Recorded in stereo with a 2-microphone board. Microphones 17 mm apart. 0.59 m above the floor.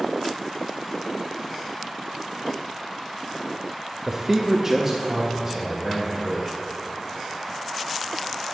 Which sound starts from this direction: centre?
A man speaking, at 4.1 s.